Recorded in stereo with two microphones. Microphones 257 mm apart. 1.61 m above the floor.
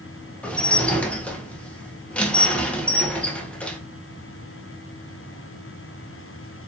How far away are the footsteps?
I don't hear footsteps.